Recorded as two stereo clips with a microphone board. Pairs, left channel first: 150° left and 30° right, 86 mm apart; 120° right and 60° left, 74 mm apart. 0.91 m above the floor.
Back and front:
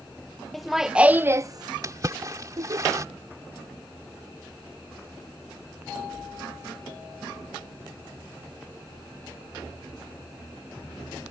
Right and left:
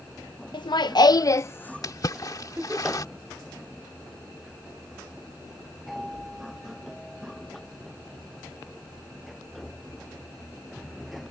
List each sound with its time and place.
0.5 s laughter: 125° right; by 2.8 s 5° right
1.8 s a splash: 80° right